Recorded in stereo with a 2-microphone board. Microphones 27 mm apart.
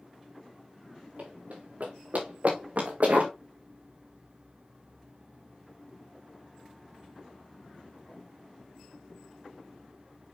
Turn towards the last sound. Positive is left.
turn(degrees=-65)  # may be behind; listen again after turning